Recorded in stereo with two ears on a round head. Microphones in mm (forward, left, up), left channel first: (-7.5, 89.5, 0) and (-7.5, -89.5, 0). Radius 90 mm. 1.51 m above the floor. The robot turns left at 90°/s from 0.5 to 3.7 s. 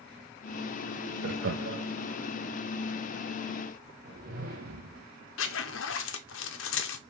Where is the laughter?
50° right (ahead or behind), 0.5 m.